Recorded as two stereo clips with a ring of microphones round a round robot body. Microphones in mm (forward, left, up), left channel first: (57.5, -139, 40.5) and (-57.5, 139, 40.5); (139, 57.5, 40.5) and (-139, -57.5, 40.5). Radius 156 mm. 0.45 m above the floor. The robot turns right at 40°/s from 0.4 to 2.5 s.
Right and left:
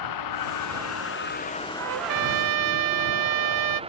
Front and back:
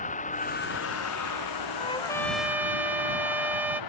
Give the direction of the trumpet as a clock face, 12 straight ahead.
9 o'clock.